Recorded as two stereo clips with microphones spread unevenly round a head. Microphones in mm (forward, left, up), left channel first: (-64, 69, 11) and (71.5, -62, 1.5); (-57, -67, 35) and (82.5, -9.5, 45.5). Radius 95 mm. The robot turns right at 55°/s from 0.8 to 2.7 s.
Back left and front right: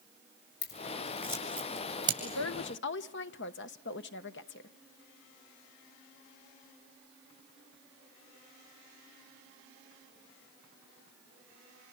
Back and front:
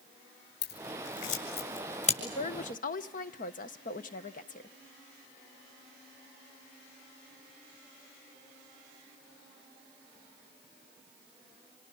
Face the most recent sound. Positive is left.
turn(degrees=165)